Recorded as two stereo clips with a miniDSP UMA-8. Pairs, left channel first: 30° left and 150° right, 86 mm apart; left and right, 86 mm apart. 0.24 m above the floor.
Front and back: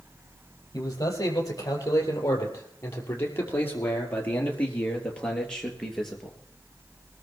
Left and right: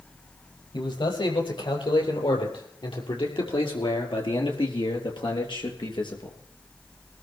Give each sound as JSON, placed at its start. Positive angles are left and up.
{"t": 0.7, "sound": "a man speaking", "azimuth_deg": 75, "distance_m": 6.5}